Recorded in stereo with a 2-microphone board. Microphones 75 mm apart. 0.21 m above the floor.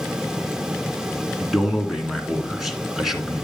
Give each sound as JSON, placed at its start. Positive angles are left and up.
{"t": 1.4, "sound": "a man speaking", "side_deg": -5, "distance_m": 2.0}